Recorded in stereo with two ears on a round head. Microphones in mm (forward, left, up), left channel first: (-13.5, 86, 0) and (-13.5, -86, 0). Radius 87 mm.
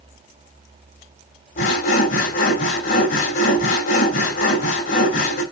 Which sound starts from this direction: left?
Sawing, at 1.6 s.